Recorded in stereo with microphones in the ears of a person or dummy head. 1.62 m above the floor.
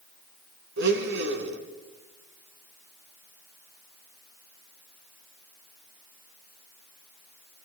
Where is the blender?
65° right (ahead or behind), 3.5 m.